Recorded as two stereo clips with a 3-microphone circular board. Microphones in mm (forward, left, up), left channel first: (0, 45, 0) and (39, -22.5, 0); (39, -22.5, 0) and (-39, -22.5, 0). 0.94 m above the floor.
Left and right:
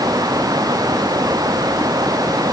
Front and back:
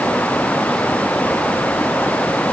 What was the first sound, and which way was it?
Only background noise.